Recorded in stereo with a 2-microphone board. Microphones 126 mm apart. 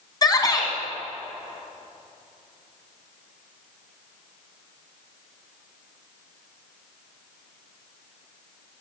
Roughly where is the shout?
Left.